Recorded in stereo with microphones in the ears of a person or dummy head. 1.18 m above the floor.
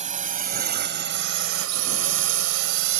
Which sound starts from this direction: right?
A drone, at 0.0 s.